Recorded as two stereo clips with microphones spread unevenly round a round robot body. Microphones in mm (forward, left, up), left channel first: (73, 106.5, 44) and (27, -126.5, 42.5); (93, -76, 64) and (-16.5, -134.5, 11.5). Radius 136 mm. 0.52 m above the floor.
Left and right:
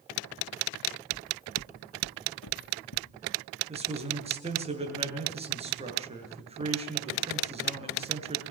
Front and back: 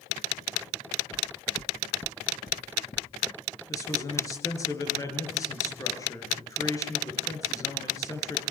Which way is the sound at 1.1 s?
30° left.